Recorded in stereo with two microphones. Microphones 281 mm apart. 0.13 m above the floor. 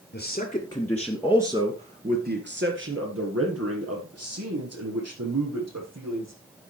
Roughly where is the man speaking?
Left.